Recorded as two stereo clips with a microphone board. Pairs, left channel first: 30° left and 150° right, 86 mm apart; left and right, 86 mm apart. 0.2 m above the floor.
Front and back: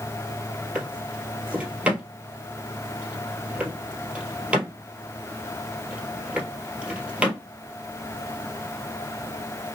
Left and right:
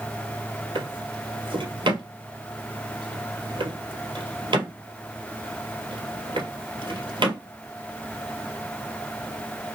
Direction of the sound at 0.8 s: 75° right.